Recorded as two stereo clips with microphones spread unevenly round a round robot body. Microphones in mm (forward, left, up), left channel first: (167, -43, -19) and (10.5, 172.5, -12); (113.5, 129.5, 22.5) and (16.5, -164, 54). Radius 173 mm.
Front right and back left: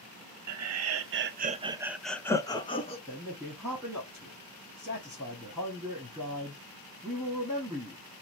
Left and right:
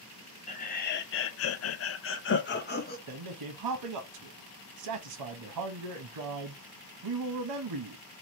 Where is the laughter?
135° left, 0.7 m; by 3.0 s 15° left, 1.0 m.